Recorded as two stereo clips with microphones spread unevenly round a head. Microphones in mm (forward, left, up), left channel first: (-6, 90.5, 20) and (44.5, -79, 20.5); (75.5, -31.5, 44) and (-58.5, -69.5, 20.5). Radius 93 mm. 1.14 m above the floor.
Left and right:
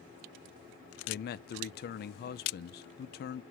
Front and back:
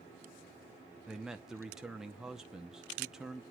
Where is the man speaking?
115° left, 0.5 m.